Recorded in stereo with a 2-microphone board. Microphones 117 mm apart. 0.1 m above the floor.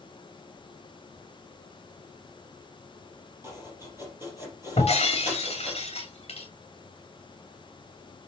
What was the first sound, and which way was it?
Chopping, 25° right (ahead or behind).